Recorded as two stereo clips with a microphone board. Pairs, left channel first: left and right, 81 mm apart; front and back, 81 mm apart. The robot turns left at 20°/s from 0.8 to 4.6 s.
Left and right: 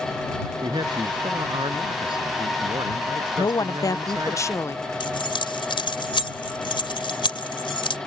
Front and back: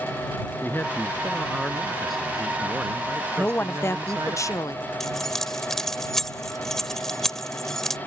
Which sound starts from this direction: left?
Keys jangling, at 5.0 s.